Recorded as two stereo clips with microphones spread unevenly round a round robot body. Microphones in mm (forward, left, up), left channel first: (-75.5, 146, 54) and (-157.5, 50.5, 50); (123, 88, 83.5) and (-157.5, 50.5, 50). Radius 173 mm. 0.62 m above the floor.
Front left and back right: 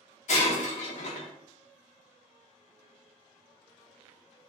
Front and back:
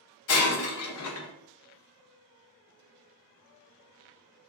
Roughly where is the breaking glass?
Ahead left.